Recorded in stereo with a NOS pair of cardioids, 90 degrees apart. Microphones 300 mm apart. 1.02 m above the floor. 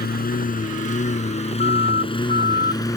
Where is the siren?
35° left.